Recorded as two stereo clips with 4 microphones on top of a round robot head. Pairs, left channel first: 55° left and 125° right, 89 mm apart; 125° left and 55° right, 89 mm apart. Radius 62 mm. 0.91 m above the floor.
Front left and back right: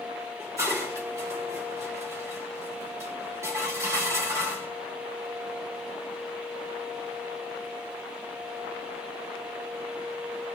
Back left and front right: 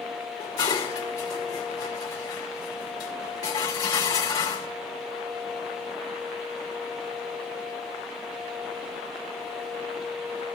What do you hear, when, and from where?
0.4 s dishes clattering: 175° left, 2.5 m